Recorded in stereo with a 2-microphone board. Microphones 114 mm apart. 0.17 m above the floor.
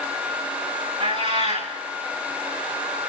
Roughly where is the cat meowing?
Right.